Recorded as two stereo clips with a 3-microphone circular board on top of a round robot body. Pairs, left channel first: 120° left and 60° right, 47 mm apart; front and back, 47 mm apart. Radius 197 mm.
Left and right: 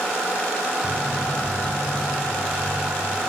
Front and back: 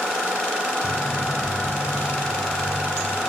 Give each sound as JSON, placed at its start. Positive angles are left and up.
{"t": 0.8, "sound": "footsteps", "azimuth_deg": 25, "distance_m": 1.5}